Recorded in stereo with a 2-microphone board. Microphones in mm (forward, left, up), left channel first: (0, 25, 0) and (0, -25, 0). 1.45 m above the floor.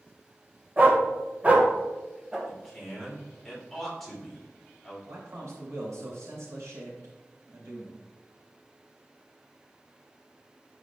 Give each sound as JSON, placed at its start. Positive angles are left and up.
{"t": 0.8, "sound": "a dog barking", "side_deg": -35, "distance_m": 1.4}
{"t": 2.5, "sound": "a man speaking", "side_deg": 5, "distance_m": 3.0}
{"t": 5.1, "sound": "a man speaking", "side_deg": -90, "distance_m": 3.5}